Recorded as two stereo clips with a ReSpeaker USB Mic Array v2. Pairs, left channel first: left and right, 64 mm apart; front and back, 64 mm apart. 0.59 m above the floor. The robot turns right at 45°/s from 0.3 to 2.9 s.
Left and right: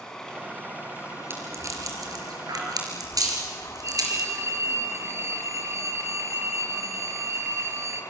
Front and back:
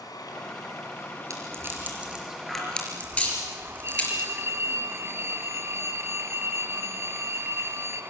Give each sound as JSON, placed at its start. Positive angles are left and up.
{"t": 0.0, "sound": "running water", "azimuth_deg": 10, "distance_m": 3.5}
{"t": 1.3, "sound": "a rattle", "azimuth_deg": -145, "distance_m": 4.5}
{"t": 3.8, "sound": "a phone ringing", "azimuth_deg": -135, "distance_m": 2.0}